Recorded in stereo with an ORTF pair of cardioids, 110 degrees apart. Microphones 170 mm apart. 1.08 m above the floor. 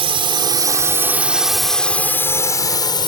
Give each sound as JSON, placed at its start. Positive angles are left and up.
{"t": 0.0, "sound": "a drone", "azimuth_deg": -35}